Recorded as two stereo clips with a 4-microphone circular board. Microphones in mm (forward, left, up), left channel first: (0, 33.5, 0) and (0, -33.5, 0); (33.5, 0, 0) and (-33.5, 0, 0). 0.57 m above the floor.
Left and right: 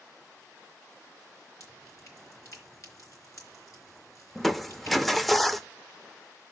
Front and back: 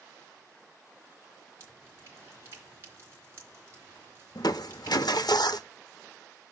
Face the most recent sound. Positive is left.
turn(degrees=0)